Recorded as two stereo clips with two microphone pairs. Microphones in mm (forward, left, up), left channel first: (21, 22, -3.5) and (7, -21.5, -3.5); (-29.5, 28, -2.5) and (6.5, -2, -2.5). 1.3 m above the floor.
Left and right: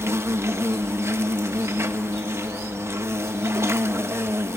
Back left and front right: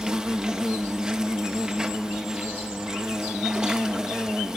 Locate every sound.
0.0 s an insect: 115° right, 1.0 m